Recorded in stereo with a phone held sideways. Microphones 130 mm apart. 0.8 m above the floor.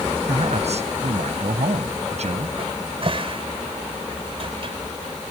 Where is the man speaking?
60° right (ahead or behind).